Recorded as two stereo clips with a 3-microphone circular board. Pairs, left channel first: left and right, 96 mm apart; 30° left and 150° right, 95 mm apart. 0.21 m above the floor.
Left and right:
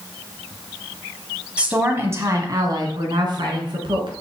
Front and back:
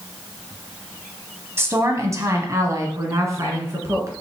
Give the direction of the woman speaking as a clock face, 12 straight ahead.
5 o'clock.